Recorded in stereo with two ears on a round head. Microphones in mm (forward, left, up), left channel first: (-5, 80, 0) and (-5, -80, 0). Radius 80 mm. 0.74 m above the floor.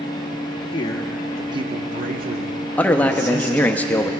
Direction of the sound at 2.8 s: 10° left (ahead or behind).